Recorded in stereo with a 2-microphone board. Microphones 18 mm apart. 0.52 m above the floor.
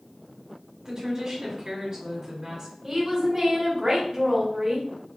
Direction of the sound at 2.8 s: 30° right (ahead or behind).